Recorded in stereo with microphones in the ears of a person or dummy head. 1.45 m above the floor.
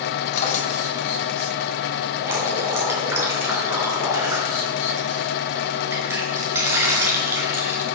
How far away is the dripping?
About 5.5 m.